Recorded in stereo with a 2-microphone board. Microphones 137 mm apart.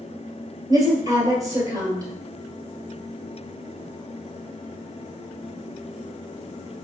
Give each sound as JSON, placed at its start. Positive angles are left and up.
{"t": 0.7, "sound": "a woman speaking", "side_deg": -25, "distance_m": 2.0}